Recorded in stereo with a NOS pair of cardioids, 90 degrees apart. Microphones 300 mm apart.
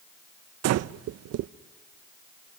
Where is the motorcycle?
I don't hear a motorcycle.